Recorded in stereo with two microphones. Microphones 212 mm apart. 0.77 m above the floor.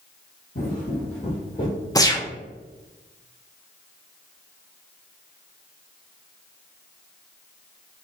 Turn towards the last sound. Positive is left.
turn(degrees=20)  # may be behind; listen again after turning